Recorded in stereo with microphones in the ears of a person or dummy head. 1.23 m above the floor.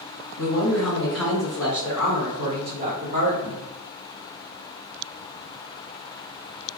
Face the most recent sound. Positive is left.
turn(degrees=-45)  # may be behind; listen again after turning